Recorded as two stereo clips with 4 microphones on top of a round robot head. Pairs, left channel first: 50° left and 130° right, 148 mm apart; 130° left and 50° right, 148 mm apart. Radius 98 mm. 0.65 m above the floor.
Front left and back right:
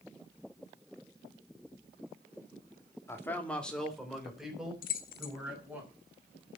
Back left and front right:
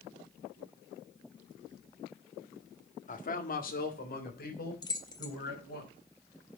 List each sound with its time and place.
3.1 s a man speaking: 120° left, 1.8 m; by 5.8 s 145° left, 5.5 m
4.8 s keys jangling: 70° left, 1.2 m